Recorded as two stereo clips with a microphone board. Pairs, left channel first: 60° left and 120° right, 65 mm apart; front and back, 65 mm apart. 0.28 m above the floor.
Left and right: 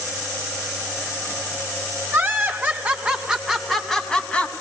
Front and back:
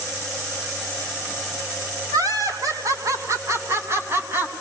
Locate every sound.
2.1 s laughter: 175° right, 3.5 m; by 4.5 s 130° left, 3 m